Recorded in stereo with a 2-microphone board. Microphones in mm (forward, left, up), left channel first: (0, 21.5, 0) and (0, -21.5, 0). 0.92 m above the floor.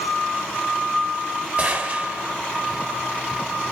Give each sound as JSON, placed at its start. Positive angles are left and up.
{"t": 1.6, "sound": "a gunshot", "side_deg": -25, "distance_m": 3.0}